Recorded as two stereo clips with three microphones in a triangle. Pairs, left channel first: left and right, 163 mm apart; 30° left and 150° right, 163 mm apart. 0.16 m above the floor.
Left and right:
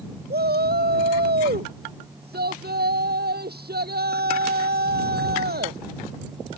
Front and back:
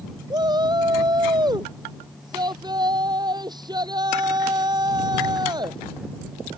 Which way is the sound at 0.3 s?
85° right.